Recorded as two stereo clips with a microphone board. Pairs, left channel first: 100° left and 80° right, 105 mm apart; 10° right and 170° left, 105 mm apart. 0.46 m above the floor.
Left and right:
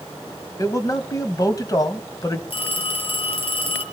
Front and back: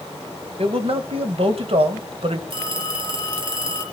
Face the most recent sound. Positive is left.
turn(degrees=130)